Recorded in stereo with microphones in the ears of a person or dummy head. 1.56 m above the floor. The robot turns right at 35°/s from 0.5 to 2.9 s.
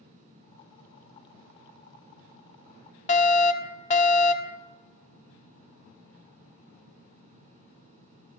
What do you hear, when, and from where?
3.1 s a fire alarm: 35° left (ahead or behind), 0.9 m